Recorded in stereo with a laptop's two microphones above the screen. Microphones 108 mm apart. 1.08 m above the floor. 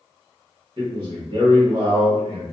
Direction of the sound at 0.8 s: 45° right (ahead or behind).